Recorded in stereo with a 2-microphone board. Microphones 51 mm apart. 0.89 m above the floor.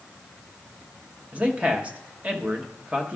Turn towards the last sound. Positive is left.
turn(degrees=-25)  # may be behind; listen again after turning